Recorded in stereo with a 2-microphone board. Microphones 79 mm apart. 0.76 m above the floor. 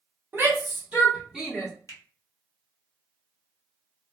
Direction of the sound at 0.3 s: 35° right (ahead or behind).